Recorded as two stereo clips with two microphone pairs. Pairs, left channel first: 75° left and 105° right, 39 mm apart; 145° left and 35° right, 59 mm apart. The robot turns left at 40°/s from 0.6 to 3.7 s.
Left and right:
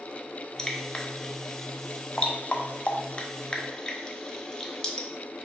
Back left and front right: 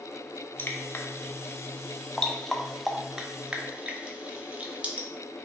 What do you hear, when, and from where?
0.6 s dripping: 140° left, 0.6 m; by 5.1 s 15° left, 0.6 m